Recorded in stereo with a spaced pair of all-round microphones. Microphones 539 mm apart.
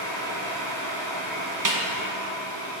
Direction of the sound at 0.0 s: 70° right (ahead or behind).